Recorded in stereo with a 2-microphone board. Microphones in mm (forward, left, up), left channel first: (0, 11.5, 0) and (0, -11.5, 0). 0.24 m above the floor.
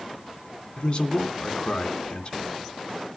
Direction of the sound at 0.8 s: 40° left (ahead or behind).